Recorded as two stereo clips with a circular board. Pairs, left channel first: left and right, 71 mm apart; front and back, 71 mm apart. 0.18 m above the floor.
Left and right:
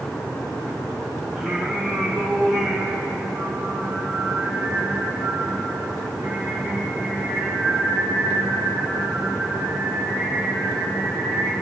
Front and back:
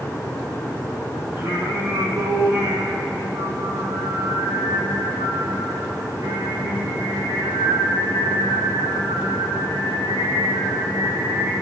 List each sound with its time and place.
1.4 s singing: 175° right, 4 m